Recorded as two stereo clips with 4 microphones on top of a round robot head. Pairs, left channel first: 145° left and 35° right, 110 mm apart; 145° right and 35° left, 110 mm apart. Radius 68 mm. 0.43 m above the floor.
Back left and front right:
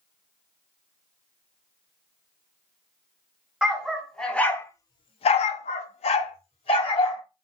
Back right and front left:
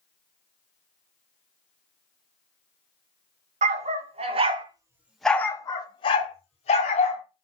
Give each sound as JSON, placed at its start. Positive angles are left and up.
{"t": 3.6, "sound": "a dog barking", "azimuth_deg": 50, "distance_m": 1.1}